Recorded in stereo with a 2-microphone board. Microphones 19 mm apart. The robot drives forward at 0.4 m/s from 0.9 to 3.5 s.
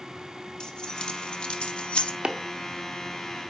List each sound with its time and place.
0.6 s keys jangling: 55° left (ahead or behind), 0.8 m; by 2.1 s 85° left, 0.7 m
2.2 s chopping: 85° right, 0.7 m; by 2.4 s 80° right, 0.7 m